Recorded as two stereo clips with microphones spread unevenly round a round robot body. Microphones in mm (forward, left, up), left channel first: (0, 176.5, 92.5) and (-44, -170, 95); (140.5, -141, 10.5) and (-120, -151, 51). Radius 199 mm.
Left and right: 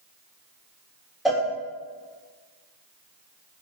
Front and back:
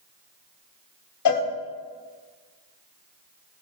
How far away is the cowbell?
About 1.2 m.